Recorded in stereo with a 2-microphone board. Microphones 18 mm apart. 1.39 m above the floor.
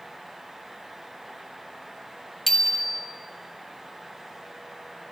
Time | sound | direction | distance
2.5 | a bicycle bell | 20° left (ahead or behind) | 2.5 m